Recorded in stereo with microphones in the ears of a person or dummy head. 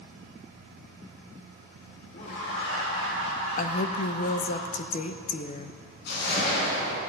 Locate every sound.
2.1 s laughter: 55° left (ahead or behind), 3 m; by 4.6 s 75° left (ahead or behind), 6 m
3.6 s a woman speaking: 50° left (ahead or behind), 0.9 m
6.1 s a whoosh: 65° left (ahead or behind), 4 m